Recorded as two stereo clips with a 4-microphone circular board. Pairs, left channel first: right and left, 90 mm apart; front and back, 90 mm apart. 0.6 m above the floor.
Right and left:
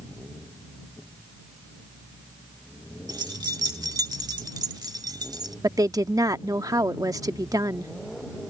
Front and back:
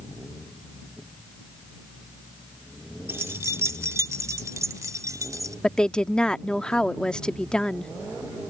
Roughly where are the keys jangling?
Behind left.